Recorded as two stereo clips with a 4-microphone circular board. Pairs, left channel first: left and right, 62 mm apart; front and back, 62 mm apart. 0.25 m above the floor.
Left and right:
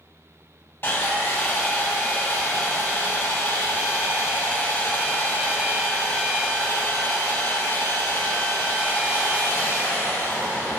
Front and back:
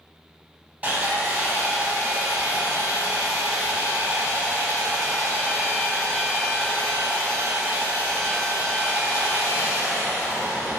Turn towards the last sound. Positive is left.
turn(degrees=125)